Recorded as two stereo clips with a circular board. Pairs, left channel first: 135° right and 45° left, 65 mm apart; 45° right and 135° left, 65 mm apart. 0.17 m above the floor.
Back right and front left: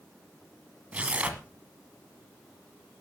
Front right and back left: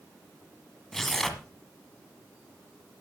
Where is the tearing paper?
30° left, 1.5 m.